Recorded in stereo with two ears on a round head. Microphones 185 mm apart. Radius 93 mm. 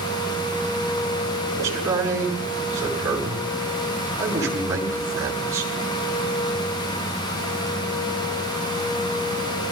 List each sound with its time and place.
1.5 s a man speaking: 15° right (ahead or behind), 7 m